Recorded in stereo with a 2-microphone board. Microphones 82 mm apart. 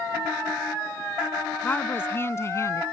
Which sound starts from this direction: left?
A woman speaking, at 1.6 s.